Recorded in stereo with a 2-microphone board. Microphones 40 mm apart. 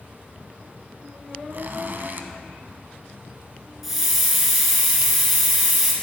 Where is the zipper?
55° right (ahead or behind), 0.6 m.